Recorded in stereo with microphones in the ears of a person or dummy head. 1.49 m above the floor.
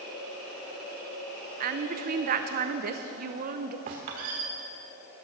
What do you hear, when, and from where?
1.6 s a woman speaking: 45° right (ahead or behind), 0.8 m
3.9 s a squeak: 35° right (ahead or behind), 1.3 m